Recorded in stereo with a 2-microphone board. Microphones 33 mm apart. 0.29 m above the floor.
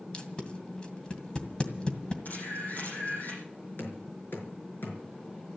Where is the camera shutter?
55° left (ahead or behind), 6.5 m.